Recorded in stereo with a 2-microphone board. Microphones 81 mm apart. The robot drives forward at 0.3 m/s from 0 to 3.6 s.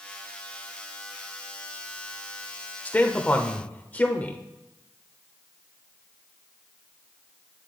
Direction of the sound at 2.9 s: 20° left (ahead or behind).